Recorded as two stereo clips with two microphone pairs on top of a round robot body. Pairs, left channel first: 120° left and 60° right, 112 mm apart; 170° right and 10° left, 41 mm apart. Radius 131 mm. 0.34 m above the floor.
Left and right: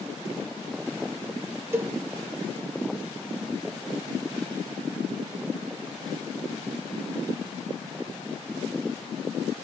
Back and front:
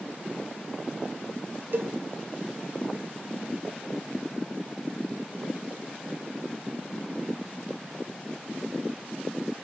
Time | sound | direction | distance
1.7 | a cowbell | 10° left | 0.6 m